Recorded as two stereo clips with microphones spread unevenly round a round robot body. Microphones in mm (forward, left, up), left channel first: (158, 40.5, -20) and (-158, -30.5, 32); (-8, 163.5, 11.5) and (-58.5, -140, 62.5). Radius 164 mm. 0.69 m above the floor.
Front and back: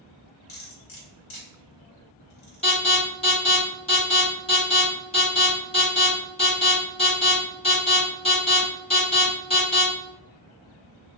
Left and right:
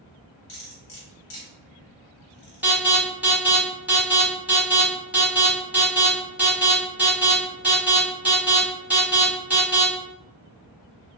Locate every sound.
0.5 s cutlery clinking: 30° left, 1.2 m
2.6 s an alarm: straight ahead, 1.6 m